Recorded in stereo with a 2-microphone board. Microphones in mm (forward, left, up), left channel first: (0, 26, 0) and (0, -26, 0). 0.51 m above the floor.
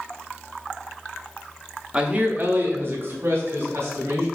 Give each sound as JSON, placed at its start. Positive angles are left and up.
{"t": 1.9, "sound": "a man speaking", "side_deg": -15, "distance_m": 0.7}